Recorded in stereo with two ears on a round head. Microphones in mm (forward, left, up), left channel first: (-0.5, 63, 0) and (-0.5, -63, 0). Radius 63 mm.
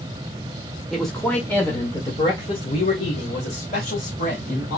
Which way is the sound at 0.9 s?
Centre (ahead or behind).